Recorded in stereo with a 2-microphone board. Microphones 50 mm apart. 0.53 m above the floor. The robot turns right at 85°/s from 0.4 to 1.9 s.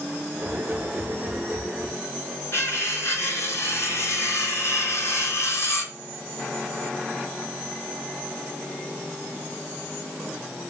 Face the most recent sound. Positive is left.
turn(degrees=60)  # may be behind; listen again after turning